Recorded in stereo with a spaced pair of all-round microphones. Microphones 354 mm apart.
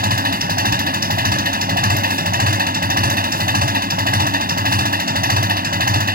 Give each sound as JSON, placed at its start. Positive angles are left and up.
{"t": 0.0, "sound": "an engine running", "side_deg": -25}